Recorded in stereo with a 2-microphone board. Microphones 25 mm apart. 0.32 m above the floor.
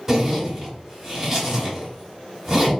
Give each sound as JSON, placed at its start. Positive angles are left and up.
{"t": 0.1, "sound": "a zipper", "side_deg": -5, "distance_m": 1.2}